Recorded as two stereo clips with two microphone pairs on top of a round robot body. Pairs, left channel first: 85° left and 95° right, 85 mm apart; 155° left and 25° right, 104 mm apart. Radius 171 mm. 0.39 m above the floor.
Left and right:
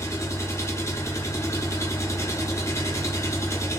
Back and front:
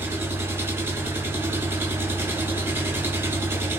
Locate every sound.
0.0 s an engine running: 40° left, 1.4 m